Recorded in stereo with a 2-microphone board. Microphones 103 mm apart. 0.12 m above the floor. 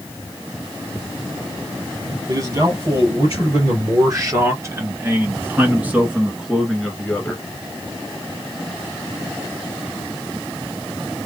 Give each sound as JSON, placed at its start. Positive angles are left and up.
{"t": 2.3, "sound": "a man speaking", "side_deg": -40, "distance_m": 2.5}